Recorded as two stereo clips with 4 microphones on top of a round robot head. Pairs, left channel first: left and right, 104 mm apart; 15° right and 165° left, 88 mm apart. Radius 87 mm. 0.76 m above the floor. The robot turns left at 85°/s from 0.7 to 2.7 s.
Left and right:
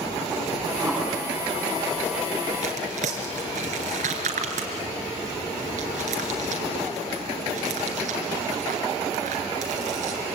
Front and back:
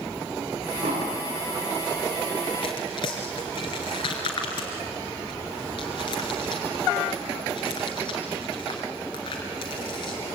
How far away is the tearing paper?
About 3 m.